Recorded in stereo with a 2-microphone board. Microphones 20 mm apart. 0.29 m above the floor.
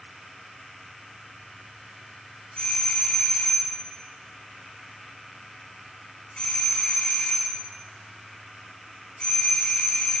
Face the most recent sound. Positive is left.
turn(degrees=55)  # may be behind; listen again after turning